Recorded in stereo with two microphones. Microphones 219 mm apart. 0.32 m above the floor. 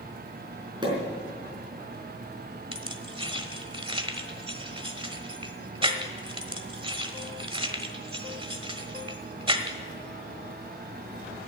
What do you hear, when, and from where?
0.8 s a pop: 20° right (ahead or behind), 4.5 m
2.7 s keys jangling: 25° right (ahead or behind), 1.2 m